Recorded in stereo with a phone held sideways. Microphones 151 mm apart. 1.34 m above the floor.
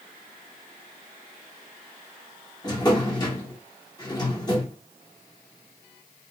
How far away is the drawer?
About 0.9 m.